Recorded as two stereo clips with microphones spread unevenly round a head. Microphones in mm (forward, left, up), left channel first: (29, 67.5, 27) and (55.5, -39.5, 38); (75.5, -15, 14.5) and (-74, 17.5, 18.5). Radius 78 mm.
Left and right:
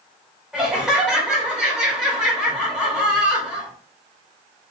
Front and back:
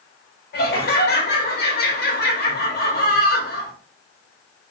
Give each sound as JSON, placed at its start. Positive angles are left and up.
{"t": 0.5, "sound": "laughter", "azimuth_deg": 10, "distance_m": 1.4}